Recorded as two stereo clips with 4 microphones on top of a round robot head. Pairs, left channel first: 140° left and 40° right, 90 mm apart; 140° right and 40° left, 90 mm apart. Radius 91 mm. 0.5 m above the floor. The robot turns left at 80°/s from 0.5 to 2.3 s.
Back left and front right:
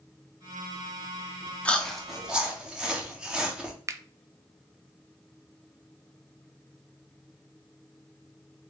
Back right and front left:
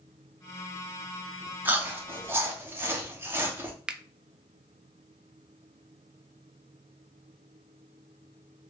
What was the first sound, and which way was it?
Chewing, 80° left.